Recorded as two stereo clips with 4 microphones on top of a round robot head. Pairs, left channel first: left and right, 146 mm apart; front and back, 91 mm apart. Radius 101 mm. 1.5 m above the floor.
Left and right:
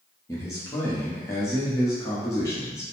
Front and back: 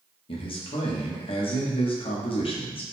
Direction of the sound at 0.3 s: 15° left.